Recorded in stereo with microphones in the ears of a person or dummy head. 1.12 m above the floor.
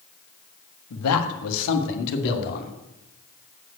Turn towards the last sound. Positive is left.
turn(degrees=50)  # may be behind; listen again after turning